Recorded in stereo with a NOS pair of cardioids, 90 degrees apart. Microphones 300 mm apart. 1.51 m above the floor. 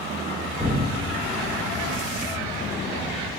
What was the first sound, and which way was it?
An explosion, 10° right.